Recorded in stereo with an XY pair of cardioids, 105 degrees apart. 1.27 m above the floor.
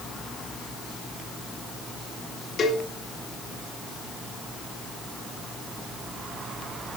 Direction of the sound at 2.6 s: 45° left.